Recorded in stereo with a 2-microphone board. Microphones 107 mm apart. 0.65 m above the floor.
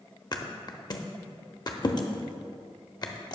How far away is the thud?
About 0.6 m.